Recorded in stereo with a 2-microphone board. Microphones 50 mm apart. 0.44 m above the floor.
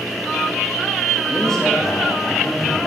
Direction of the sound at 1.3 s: 10° left (ahead or behind).